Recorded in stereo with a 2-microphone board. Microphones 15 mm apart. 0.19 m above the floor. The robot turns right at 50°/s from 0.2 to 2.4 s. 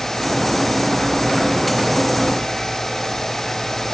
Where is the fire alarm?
I don't hear a fire alarm.